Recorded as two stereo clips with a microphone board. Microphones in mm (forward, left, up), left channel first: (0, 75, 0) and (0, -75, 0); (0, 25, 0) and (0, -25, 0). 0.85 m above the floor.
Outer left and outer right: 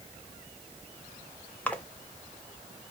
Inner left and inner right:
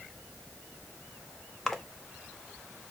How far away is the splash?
About 0.6 m.